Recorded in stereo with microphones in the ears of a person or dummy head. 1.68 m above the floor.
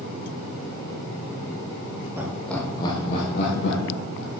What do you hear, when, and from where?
2.2 s laughter: 10° right (ahead or behind), 1.3 m; by 4.3 s 75° left (ahead or behind), 2 m